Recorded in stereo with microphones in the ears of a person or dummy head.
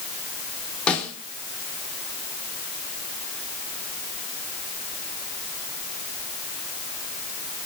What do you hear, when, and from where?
0.9 s a snare drum: 5° left (ahead or behind), 3.5 m